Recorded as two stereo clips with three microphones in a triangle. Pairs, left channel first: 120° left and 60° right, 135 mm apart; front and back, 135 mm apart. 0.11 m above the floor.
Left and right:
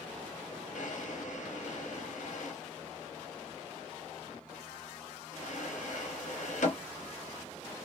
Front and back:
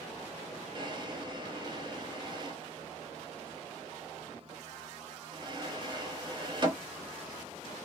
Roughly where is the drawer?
Behind left.